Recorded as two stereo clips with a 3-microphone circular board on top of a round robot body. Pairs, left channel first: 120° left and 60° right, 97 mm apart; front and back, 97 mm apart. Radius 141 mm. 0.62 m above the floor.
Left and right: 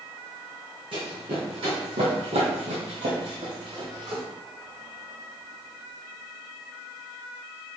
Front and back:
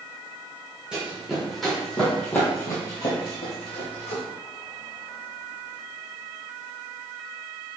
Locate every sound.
0.9 s running footsteps: 100° right, 2.0 m; by 4.2 s 5° right, 1.4 m